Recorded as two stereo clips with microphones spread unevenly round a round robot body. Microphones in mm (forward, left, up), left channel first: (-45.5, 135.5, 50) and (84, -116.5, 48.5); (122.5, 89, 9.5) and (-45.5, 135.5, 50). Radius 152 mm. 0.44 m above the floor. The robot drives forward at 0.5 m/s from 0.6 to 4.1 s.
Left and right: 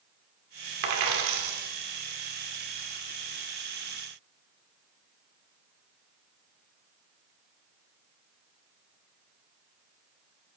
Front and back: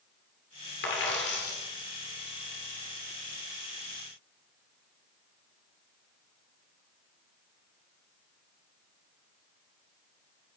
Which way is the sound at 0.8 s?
55° right.